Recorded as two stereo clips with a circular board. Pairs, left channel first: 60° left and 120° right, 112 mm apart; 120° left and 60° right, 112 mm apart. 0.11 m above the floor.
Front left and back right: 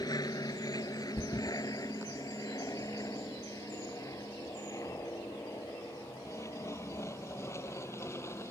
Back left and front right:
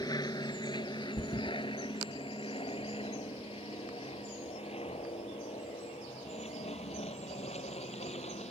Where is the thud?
100° left.